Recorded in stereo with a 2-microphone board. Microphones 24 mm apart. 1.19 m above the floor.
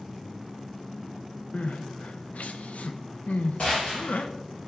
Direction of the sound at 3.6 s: 75° left (ahead or behind).